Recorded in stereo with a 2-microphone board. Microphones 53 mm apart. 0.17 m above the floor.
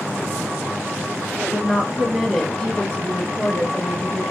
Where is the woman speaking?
30° right (ahead or behind), 1.3 m; by 4.2 s 40° left (ahead or behind), 1.9 m.